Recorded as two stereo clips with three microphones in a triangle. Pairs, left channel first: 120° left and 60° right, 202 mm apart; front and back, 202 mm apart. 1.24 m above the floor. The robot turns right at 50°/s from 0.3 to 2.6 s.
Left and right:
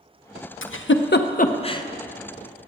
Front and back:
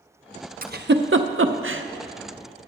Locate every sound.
0.6 s a giggle: 130° left, 0.6 m; by 1.8 s 165° right, 0.6 m